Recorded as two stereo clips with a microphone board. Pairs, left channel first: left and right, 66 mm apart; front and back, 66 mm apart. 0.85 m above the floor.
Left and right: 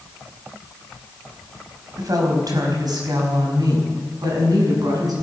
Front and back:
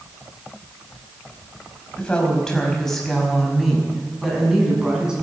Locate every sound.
2.0 s a woman speaking: 75° right, 4.5 m; by 5.1 s 105° right, 6.5 m